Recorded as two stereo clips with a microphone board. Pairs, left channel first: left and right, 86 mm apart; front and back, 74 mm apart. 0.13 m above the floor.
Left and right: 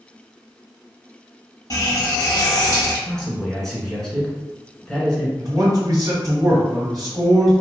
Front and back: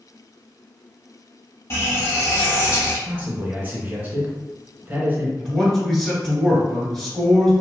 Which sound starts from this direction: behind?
A man speaking, at 3.1 s.